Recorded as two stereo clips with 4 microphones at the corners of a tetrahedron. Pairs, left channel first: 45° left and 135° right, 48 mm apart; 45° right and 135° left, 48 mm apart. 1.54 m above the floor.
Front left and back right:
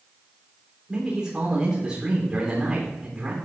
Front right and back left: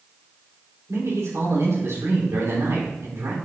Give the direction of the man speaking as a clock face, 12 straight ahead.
7 o'clock.